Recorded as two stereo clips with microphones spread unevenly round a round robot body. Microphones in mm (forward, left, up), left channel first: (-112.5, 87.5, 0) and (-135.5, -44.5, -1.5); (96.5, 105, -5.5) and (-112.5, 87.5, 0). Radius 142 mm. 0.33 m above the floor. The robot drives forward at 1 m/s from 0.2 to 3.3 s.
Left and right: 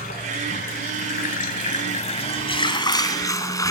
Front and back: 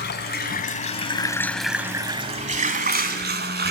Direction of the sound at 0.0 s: 40° left.